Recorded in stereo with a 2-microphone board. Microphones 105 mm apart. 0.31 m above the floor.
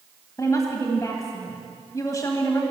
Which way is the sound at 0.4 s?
30° left (ahead or behind).